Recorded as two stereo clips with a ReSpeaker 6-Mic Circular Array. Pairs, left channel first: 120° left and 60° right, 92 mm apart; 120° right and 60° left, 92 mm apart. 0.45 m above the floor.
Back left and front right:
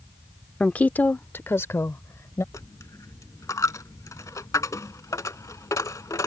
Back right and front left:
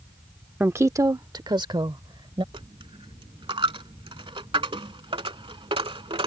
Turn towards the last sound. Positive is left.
turn(degrees=70)